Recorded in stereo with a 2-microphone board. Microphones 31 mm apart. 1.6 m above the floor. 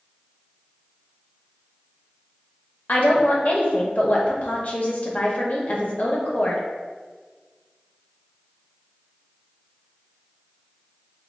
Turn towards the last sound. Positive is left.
turn(degrees=45)  # may be behind; listen again after turning